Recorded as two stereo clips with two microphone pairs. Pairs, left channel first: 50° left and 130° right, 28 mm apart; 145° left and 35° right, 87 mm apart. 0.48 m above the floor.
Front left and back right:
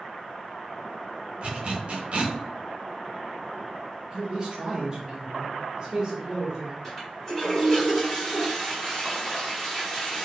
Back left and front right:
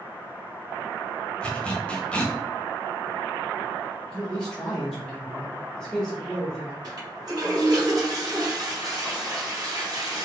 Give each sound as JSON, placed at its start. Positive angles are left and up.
{"t": 1.4, "sound": "a zipper", "azimuth_deg": -140, "distance_m": 0.6}
{"t": 4.1, "sound": "a man speaking", "azimuth_deg": -140, "distance_m": 0.7}
{"t": 6.8, "sound": "a toilet flushing", "azimuth_deg": -20, "distance_m": 1.7}